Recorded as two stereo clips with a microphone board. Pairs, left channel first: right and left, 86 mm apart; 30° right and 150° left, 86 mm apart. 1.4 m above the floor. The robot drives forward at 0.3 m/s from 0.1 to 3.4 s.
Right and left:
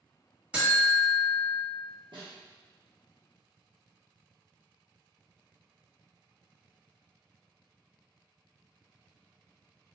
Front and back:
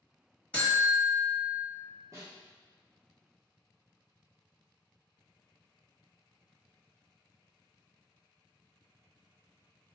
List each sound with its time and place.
0.5 s a buzzer: 30° left, 1.3 m; by 1.6 s 55° left, 1.2 m
2.1 s a snare drum: 100° left, 0.8 m; by 2.3 s 105° left, 0.8 m